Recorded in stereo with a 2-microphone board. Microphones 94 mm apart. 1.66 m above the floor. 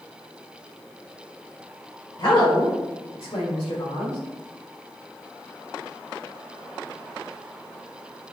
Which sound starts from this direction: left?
A woman speaking, at 2.2 s.